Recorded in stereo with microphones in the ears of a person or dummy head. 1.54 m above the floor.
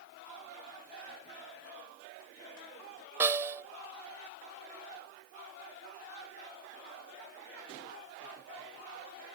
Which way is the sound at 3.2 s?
10° right (ahead or behind).